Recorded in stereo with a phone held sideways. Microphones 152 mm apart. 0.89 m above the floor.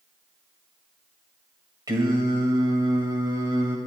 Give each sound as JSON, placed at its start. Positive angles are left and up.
{"t": 1.9, "sound": "singing", "side_deg": -25, "distance_m": 2.5}